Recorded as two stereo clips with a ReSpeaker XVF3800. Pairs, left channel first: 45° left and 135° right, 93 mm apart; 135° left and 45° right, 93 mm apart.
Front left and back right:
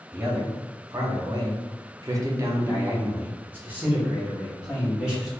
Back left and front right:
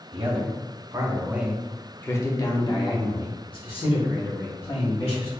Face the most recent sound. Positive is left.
turn(degrees=145)